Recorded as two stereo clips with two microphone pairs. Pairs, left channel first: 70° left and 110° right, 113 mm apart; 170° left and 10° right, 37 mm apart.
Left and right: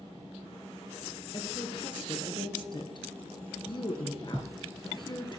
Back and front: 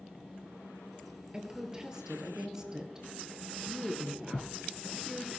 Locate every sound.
1.3 s a woman speaking: 55° left, 1.7 m